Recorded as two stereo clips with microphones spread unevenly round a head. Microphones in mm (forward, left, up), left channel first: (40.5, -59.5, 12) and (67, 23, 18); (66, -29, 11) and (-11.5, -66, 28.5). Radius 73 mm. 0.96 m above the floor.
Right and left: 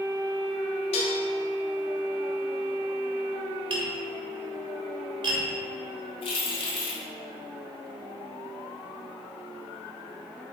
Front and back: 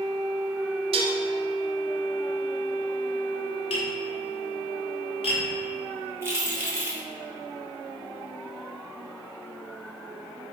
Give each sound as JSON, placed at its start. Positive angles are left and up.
{"t": 0.9, "sound": "dishes clattering", "azimuth_deg": -145, "distance_m": 0.6}
{"t": 3.7, "sound": "tapping", "azimuth_deg": 50, "distance_m": 1.9}
{"t": 6.2, "sound": "keys jangling", "azimuth_deg": -90, "distance_m": 1.7}